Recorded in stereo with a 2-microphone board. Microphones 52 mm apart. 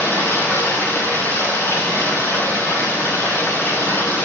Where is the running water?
50° left (ahead or behind), 8 m.